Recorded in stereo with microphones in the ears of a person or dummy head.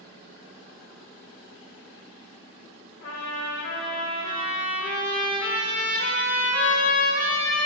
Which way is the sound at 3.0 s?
60° left (ahead or behind).